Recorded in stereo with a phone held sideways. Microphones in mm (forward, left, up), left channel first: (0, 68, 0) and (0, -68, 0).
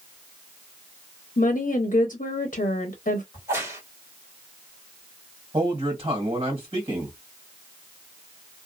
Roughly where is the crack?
Right.